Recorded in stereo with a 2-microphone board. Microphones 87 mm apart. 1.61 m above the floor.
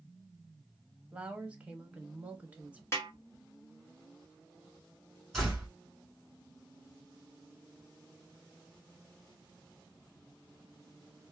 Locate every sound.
1.1 s a woman speaking: 15° right (ahead or behind), 0.9 m
2.9 s a snare drum: 30° left (ahead or behind), 1.2 m
5.3 s a door slam: 5° left (ahead or behind), 1.8 m